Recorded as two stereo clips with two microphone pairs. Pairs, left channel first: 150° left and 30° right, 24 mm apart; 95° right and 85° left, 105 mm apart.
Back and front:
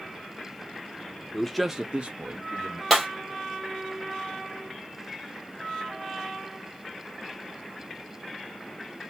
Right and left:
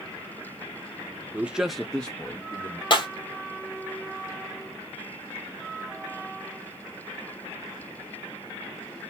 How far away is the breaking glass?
About 1.6 m.